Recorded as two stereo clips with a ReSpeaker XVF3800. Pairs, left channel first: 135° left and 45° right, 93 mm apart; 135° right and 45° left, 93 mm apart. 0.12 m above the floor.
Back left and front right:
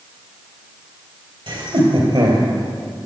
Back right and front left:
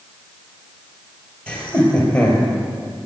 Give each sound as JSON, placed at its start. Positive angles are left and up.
{"t": 1.5, "sound": "laughter", "azimuth_deg": -60, "distance_m": 3.5}